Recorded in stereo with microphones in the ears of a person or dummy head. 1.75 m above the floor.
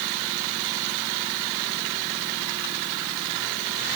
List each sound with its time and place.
Only background noise.